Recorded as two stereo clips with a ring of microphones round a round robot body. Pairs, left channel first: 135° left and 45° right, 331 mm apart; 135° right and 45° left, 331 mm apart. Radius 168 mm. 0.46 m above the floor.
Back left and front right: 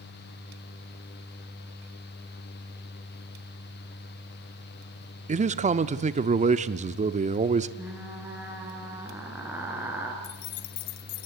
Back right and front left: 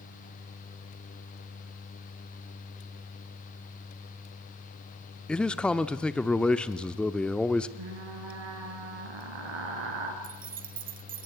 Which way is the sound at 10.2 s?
110° left.